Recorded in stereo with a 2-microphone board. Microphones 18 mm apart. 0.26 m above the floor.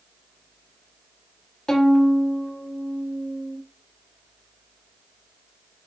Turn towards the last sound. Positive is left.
turn(degrees=35)  # may be behind; listen again after turning